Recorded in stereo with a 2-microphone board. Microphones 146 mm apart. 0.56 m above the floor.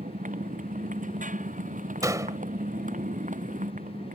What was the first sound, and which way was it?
A motorcycle, 65° right (ahead or behind).